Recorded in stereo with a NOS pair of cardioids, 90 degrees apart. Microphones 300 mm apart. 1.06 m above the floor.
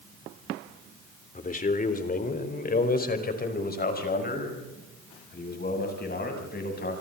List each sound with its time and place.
1.4 s a man speaking: 25° left, 3.5 m; by 6.9 s 35° left, 9 m